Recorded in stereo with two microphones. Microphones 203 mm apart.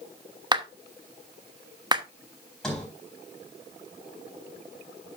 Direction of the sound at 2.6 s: 5° left (ahead or behind).